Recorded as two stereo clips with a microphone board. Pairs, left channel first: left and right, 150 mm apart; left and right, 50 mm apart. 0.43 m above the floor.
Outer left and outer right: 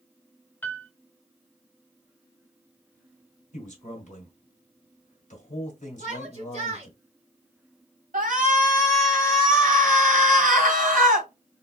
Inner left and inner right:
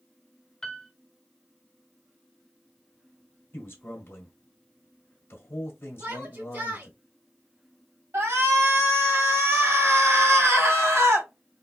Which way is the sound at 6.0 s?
45° right (ahead or behind).